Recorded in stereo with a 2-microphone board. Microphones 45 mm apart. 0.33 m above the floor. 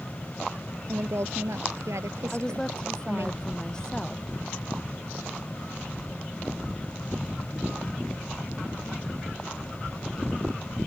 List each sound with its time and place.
0.9 s a woman speaking: 75° right (ahead or behind)
2.3 s a woman speaking: 15° left (ahead or behind)